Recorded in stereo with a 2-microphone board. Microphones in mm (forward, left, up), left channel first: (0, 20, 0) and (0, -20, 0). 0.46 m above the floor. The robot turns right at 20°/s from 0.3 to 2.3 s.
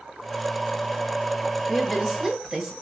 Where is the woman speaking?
10° left (ahead or behind), 1.9 m; by 2.7 s 5° right (ahead or behind), 1.9 m.